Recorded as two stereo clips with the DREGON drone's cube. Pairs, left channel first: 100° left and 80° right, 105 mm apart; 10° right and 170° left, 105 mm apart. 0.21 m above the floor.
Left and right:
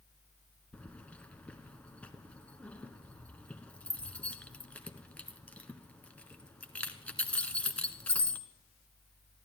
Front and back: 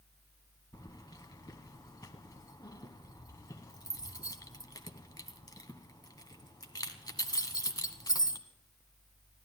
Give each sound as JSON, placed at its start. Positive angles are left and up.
{"t": 0.7, "sound": "keys jangling", "azimuth_deg": 30, "distance_m": 1.1}